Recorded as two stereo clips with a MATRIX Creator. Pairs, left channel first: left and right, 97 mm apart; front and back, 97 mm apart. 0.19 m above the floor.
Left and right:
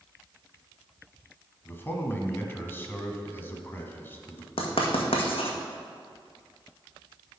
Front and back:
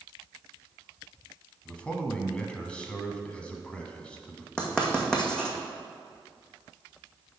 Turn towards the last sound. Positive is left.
turn(degrees=80)